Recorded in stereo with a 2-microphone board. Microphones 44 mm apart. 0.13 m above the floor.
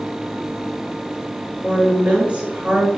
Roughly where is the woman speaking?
Right.